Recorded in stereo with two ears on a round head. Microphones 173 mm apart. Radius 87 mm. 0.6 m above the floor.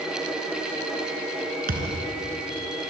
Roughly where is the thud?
Right.